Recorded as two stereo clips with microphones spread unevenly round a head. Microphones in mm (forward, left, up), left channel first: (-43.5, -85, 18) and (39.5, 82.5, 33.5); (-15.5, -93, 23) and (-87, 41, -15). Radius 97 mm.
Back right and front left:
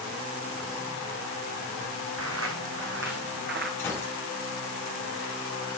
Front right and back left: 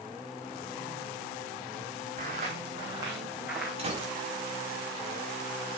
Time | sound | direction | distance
2.2 | footsteps | 60° left | 3 m
3.8 | a gunshot | 165° left | 5.5 m